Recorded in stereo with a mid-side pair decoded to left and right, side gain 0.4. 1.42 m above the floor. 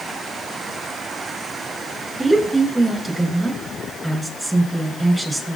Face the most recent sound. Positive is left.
turn(degrees=-25)